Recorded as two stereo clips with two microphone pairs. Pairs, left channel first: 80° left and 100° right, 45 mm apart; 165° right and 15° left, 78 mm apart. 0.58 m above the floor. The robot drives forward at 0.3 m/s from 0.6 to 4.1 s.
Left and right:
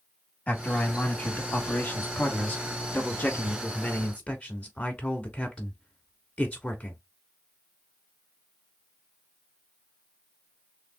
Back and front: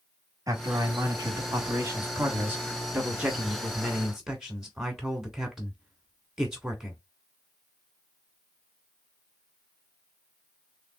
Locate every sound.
0.5 s a man speaking: 40° left, 1.6 m; by 7.0 s 95° left, 1.3 m